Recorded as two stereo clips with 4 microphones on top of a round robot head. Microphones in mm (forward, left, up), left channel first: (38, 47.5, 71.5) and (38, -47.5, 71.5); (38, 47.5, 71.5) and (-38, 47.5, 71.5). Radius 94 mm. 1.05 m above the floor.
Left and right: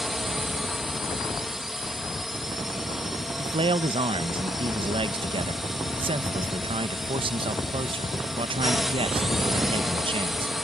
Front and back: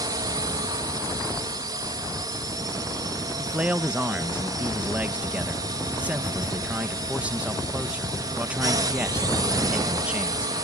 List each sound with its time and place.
0.0 s a drone: 175° right
3.4 s a man speaking: 105° right